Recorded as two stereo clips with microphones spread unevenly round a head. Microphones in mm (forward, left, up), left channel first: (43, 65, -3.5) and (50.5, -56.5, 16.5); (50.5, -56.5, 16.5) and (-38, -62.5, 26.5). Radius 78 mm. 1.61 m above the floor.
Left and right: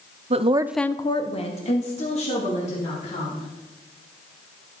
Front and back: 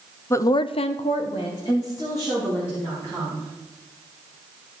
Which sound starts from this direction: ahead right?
A woman speaking, at 0.3 s.